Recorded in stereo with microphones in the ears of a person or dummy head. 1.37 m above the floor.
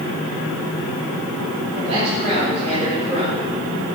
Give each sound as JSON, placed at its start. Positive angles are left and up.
{"t": 1.7, "sound": "a man speaking", "side_deg": -40, "distance_m": 5.0}